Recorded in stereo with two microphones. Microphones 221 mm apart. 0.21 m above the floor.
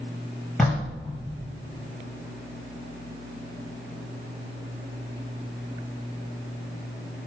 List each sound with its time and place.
0.6 s knocking: centre (ahead or behind), 4 m